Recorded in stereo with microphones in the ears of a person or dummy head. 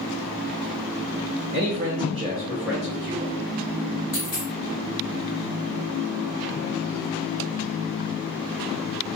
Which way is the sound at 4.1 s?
5° left (ahead or behind).